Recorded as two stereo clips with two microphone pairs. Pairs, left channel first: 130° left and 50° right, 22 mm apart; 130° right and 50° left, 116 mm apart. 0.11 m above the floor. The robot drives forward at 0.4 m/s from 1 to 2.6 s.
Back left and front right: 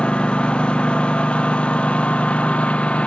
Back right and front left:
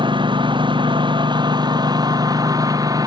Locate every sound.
0.0 s a lawn mower: 95° left; by 3.1 s 105° left